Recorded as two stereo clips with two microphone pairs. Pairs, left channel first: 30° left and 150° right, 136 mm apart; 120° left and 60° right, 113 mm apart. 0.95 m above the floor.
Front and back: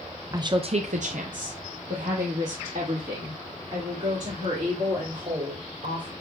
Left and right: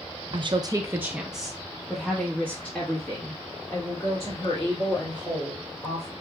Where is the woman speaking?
90° right, 0.5 m; by 6.1 s straight behind, 3.5 m.